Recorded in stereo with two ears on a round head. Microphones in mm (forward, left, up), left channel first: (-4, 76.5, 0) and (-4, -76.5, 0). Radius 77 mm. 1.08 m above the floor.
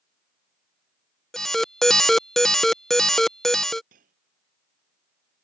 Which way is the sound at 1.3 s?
Centre (ahead or behind).